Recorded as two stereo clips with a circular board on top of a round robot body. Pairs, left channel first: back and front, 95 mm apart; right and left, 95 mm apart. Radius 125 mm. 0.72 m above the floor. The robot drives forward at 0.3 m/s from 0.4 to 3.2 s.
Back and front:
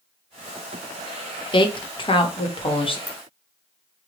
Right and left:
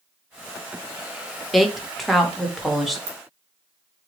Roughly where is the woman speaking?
Behind.